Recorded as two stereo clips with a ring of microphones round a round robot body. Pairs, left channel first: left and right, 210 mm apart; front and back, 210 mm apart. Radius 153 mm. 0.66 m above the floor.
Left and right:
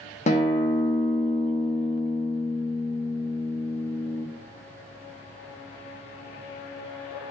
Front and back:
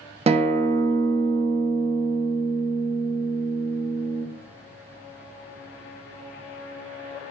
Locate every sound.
0.3 s a guitar: 130° left, 0.6 m